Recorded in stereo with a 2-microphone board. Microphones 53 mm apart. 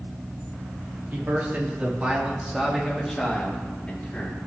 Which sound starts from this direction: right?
A man speaking, at 1.1 s.